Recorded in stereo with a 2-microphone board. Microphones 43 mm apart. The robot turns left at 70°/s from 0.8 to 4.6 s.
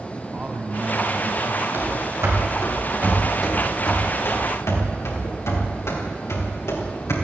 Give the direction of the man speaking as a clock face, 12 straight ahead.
1 o'clock.